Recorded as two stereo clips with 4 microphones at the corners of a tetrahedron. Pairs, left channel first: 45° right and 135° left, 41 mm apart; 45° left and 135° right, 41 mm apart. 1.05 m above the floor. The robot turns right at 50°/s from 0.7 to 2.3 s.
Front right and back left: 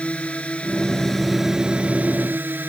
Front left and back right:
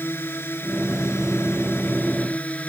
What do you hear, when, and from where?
0.0 s a drone: 15° left; by 2.7 s 95° left